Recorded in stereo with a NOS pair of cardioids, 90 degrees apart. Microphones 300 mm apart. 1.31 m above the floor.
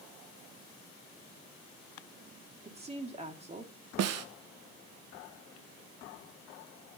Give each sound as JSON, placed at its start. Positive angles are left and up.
{"t": 2.6, "sound": "a woman speaking", "azimuth_deg": -20, "distance_m": 2.5}
{"t": 4.0, "sound": "a snare drum", "azimuth_deg": -60, "distance_m": 1.0}